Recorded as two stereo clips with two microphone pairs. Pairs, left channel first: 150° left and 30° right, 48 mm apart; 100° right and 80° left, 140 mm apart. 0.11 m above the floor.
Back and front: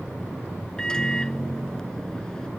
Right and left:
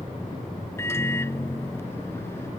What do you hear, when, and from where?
0.8 s a microwave: 155° right